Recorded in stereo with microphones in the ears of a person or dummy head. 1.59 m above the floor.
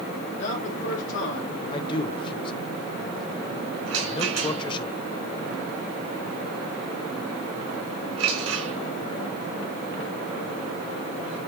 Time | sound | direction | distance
0.3 | a man speaking | 70° left (ahead or behind) | 3.5 m
1.7 | a man speaking | 25° left (ahead or behind) | 1.1 m
3.9 | a rattle | 80° right | 3 m